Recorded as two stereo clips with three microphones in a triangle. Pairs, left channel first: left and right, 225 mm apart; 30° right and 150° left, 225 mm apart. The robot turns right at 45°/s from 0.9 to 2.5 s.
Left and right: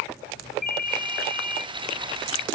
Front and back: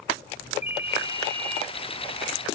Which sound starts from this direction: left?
A ringtone, at 0.6 s.